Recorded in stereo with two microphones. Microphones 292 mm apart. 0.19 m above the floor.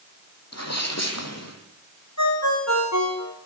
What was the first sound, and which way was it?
A sneeze, 60° left (ahead or behind).